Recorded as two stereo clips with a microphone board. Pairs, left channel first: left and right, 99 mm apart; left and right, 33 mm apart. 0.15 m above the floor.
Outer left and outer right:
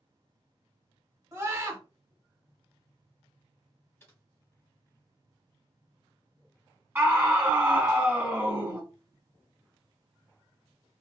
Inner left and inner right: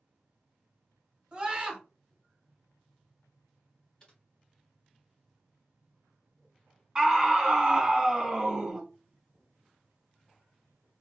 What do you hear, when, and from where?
1.3 s a scream: 30° right (ahead or behind), 1.8 m
4.0 s typing on a keyboard: 25° left (ahead or behind), 1.5 m
7.0 s a scream: 25° right (ahead or behind), 1.7 m